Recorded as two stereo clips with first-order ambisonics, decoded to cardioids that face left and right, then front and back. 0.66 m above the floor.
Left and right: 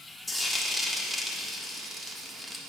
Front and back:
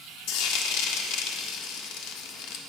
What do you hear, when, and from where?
0.3 s frying: 5° left, 1.4 m